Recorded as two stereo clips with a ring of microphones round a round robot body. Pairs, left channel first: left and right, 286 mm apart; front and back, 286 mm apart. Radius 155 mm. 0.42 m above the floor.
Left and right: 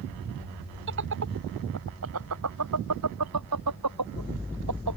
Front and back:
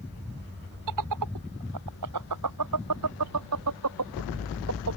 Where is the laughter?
145° right; by 5.0 s 130° right.